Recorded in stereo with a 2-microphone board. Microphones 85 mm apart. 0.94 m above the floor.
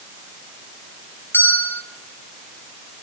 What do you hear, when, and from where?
1.3 s a bell: 25° left (ahead or behind), 3.5 m